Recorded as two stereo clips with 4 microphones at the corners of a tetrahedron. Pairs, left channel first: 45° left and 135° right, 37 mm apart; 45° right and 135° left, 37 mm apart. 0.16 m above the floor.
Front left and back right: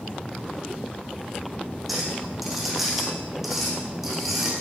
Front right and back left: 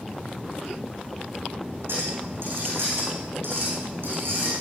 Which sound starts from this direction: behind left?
A clink, at 1.9 s.